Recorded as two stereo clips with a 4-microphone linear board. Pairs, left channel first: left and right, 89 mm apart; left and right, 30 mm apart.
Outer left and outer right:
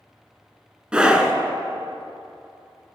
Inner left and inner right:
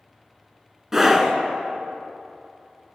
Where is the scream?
10° right (ahead or behind), 1.4 m.